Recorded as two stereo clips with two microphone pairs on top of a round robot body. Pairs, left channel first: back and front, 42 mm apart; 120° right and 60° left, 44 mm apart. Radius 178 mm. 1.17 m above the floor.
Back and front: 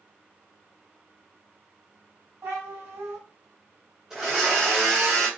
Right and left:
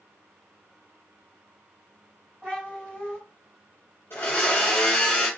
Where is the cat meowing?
Straight ahead, 2.5 m.